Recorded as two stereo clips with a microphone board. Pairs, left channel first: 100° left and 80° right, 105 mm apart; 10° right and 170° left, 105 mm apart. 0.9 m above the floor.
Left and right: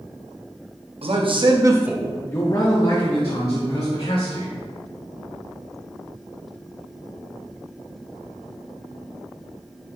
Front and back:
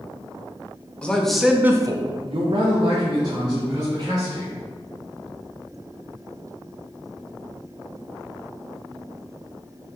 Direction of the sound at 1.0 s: 90° right.